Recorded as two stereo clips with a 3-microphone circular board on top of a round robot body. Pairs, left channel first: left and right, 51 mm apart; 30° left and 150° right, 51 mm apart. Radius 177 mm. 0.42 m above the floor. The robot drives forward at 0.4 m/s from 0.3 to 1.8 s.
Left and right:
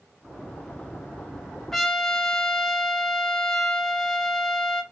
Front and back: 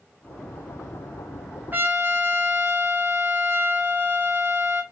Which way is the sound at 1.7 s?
170° left.